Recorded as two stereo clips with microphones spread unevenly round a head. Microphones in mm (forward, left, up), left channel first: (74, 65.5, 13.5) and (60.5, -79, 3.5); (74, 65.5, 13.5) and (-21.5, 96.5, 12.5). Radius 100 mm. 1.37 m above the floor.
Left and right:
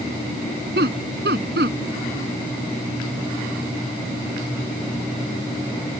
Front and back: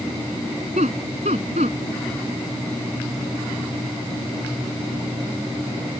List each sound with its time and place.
0.8 s laughter: 140° right